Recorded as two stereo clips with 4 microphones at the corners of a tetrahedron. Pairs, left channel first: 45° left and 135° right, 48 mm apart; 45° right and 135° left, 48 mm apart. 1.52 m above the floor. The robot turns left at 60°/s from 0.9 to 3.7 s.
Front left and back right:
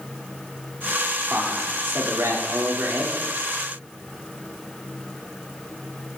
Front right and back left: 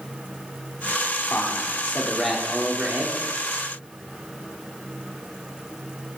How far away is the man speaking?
About 4 m.